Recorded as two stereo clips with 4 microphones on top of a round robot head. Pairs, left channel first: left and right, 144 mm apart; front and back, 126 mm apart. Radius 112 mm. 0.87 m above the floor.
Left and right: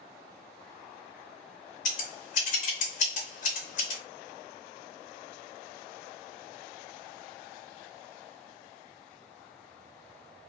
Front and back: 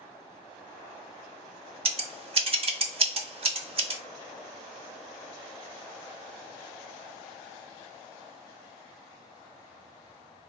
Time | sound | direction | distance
1.9 | scissors | 140° left | 0.6 m